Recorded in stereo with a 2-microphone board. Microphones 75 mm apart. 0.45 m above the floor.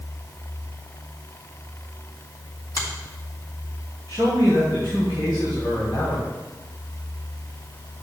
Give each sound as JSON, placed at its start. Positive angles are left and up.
{"t": 2.8, "sound": "a finger snap", "side_deg": 50, "distance_m": 3.5}
{"t": 4.1, "sound": "a man speaking", "side_deg": 65, "distance_m": 3.5}